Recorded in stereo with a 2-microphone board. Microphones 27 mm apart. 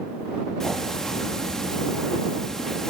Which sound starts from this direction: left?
Ticking, at 0.6 s.